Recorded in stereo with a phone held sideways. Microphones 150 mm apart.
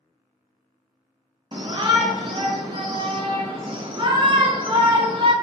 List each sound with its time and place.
1.5 s a shout: 35° right (ahead or behind), 0.5 m